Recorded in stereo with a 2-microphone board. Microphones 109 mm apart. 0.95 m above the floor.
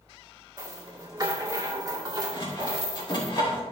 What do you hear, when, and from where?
0.6 s a rattle: 40° right (ahead or behind), 1.9 m
2.3 s sawing: 45° left (ahead or behind), 2.5 m